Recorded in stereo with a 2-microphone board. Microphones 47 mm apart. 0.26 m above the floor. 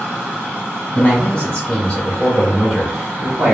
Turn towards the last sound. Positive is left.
turn(degrees=-20)  # may be behind; listen again after turning